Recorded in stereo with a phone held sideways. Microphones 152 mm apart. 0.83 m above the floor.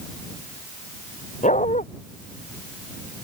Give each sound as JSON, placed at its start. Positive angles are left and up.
{"t": 1.4, "sound": "a dog barking", "side_deg": 60}